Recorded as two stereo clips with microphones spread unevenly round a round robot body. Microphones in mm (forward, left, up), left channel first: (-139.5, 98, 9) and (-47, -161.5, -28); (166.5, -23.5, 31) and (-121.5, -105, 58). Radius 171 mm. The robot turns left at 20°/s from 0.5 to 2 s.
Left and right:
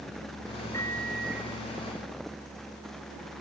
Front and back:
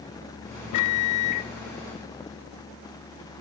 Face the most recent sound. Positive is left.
turn(degrees=0)